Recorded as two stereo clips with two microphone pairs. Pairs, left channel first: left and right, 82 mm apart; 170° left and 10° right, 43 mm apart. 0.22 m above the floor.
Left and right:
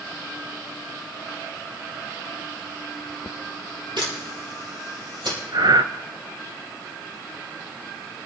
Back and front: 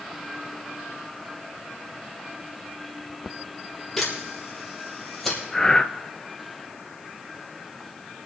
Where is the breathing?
115° right, 0.5 m.